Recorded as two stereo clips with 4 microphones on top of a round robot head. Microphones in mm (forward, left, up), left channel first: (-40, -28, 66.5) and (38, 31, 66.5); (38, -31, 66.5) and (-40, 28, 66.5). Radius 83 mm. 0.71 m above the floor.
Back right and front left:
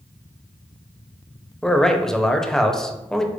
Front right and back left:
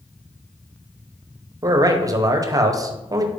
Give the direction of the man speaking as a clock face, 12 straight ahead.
7 o'clock.